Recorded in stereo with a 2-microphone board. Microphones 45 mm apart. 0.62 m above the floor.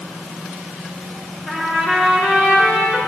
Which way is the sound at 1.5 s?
20° right (ahead or behind).